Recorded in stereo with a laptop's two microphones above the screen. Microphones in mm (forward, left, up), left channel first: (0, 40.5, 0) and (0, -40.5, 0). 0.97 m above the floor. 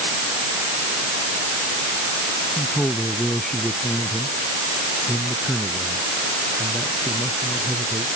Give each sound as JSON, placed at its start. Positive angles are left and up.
{"t": 2.6, "sound": "a man speaking", "side_deg": 10}